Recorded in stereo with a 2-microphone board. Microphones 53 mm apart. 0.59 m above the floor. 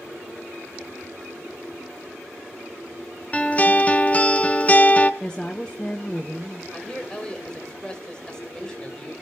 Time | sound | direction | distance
3.3 | a guitar | 30° left (ahead or behind) | 0.9 m
5.2 | a woman speaking | 15° left (ahead or behind) | 1.4 m
6.7 | a man speaking | 15° left (ahead or behind) | 3 m